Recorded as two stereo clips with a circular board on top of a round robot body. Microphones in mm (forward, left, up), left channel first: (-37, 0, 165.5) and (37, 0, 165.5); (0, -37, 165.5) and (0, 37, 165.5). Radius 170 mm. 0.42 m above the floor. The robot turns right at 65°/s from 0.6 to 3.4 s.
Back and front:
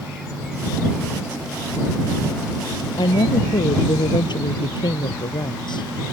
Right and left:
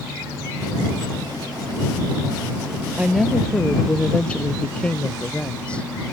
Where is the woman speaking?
165° left; by 5.9 s 165° right.